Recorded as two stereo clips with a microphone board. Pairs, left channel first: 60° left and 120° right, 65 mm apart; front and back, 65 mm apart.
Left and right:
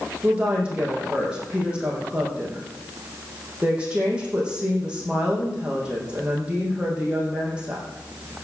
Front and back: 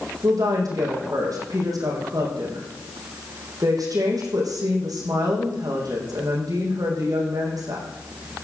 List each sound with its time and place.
0.2 s a woman speaking: 165° left, 5 m